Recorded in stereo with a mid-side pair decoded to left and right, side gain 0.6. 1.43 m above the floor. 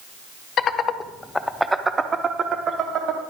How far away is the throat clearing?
I don't hear throat clearing.